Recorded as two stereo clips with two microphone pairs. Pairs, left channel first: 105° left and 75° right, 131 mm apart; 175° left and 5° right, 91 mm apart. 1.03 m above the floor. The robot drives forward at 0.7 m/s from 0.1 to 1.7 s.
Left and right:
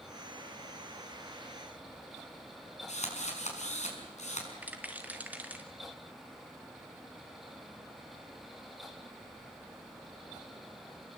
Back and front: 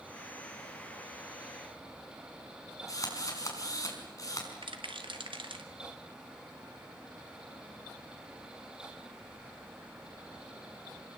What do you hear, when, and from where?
2.9 s a drill: 125° left, 5.5 m
4.6 s a rattle: straight ahead, 2.5 m